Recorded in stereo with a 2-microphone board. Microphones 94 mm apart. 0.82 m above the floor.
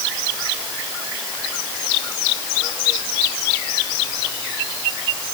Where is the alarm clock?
No alarm clock in this recording.